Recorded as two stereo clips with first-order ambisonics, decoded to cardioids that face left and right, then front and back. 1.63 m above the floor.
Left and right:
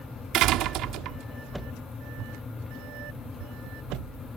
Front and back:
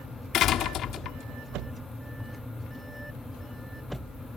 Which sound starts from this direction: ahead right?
A door slam, at 0.3 s.